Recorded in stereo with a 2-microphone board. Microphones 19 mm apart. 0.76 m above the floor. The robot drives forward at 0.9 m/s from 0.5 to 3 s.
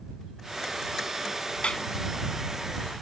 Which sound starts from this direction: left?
A clap, at 1.6 s.